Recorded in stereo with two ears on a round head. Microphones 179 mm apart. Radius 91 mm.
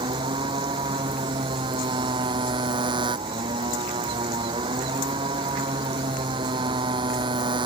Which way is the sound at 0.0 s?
25° right (ahead or behind).